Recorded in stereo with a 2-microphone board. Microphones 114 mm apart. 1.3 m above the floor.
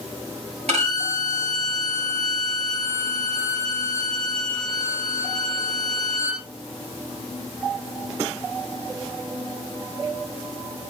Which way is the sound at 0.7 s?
70° right (ahead or behind).